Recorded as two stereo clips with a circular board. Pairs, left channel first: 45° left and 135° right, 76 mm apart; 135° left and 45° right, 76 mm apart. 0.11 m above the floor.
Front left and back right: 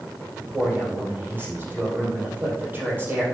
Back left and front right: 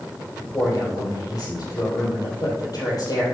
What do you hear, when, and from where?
0.4 s a man speaking: 160° left, 4 m